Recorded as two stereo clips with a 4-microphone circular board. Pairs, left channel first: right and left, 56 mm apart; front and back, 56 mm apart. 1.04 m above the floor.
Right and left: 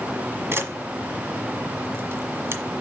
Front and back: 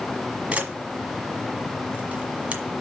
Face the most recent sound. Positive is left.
turn(degrees=125)